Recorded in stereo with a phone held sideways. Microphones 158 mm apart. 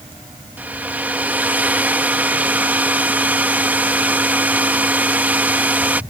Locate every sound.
0.6 s a hair dryer: 10° right (ahead or behind)